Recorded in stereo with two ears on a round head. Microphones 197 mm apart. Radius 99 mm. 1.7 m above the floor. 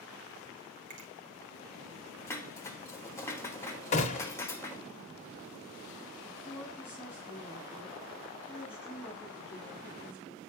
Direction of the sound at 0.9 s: 60° right (ahead or behind).